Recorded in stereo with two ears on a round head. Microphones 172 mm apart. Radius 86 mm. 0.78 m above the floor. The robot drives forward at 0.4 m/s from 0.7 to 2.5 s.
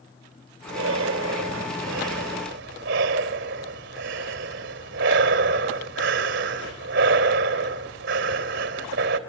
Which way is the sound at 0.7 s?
80° right.